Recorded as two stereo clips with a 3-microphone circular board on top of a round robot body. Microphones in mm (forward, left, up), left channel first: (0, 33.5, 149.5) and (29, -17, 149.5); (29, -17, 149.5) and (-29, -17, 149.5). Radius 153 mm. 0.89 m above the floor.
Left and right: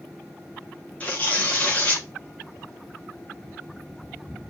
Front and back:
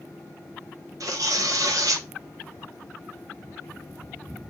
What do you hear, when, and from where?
1.0 s tearing paper: 175° right, 1.0 m